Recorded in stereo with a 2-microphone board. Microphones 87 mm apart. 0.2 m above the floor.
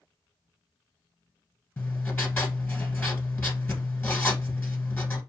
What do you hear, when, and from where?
1.8 s writing: 20° left (ahead or behind), 1.4 m